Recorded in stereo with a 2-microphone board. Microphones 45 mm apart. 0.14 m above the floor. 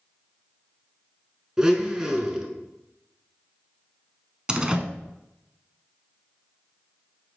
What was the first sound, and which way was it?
A blender, 15° right (ahead or behind).